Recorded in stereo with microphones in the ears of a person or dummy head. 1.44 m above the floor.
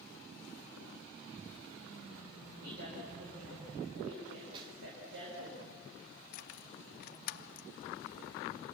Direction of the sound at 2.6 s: 70° right (ahead or behind).